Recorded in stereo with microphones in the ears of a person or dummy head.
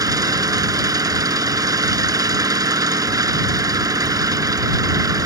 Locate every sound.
0.0 s an engine running: 25° right (ahead or behind)